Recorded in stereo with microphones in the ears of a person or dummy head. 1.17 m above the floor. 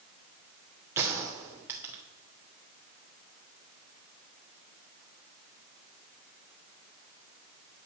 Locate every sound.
1.0 s a gunshot: 20° right (ahead or behind), 2.5 m